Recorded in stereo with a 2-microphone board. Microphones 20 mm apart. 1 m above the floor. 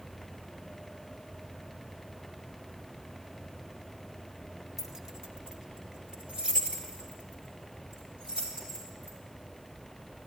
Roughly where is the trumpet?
No trumpet in this recording.